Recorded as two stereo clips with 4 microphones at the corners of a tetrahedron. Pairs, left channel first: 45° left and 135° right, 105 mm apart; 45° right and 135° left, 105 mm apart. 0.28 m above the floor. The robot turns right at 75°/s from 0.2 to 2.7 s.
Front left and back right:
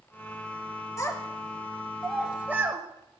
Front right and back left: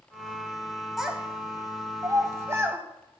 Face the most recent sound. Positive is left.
turn(degrees=180)